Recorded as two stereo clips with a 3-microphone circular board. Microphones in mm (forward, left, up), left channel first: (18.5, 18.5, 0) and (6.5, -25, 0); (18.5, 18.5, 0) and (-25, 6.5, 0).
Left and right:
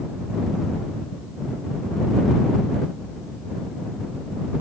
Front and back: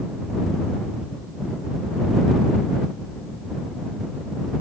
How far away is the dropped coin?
No dropped coin in this recording.